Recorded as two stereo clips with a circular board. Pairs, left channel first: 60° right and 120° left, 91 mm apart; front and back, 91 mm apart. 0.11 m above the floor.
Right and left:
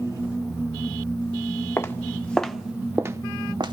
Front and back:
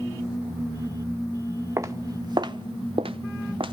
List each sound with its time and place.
1.8 s footsteps: 120° right, 1.3 m; by 3.7 s 150° left, 1.2 m